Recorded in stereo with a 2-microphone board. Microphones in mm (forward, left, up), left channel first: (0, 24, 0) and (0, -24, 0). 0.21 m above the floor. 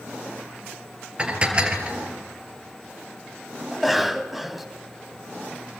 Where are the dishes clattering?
20° right (ahead or behind), 2.5 m.